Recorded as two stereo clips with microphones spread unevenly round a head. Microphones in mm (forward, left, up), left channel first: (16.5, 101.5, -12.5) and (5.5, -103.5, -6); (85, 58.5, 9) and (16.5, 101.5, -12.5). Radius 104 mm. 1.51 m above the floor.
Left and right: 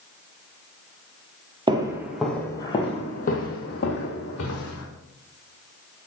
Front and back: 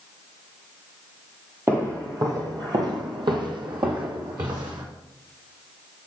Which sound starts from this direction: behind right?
Footsteps, at 1.7 s.